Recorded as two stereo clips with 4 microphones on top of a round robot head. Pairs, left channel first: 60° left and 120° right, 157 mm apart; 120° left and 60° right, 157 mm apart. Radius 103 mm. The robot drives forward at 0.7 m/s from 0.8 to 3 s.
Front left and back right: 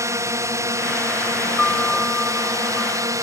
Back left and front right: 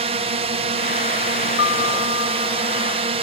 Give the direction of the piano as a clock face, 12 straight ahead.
7 o'clock.